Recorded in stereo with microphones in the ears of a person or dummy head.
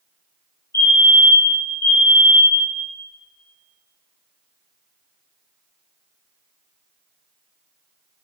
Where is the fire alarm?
20° left (ahead or behind), 2.5 m.